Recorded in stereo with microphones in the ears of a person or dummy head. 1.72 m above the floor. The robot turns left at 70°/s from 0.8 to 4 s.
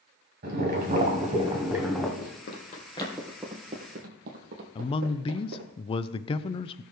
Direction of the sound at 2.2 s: 60° left (ahead or behind).